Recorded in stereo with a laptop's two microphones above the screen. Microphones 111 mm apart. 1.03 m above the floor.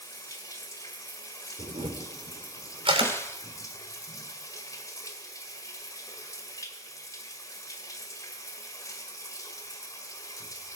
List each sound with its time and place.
0.0 s running water: 30° left (ahead or behind), 1.5 m
1.6 s a camera shutter: 55° right (ahead or behind), 3 m
3.0 s a snare drum: 25° left (ahead or behind), 1.0 m